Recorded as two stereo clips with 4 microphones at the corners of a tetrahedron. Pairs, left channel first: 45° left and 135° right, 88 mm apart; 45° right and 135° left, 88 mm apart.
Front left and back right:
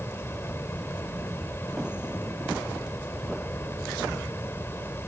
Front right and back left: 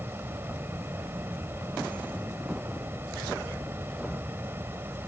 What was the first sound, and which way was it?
An insect, 90° left.